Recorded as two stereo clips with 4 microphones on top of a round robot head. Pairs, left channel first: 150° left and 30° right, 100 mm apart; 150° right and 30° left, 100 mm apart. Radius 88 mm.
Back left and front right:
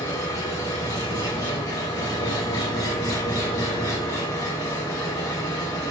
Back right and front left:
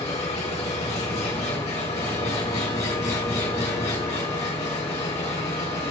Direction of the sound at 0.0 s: 155° right.